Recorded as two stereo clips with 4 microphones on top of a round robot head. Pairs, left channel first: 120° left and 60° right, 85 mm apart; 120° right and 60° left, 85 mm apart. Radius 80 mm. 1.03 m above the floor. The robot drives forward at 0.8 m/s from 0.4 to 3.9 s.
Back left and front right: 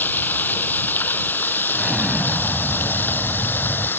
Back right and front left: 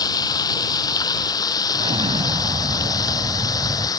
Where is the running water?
170° right.